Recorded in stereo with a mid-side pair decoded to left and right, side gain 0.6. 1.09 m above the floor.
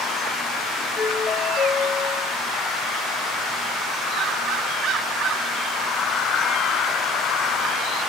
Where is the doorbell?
55° left, 2 m.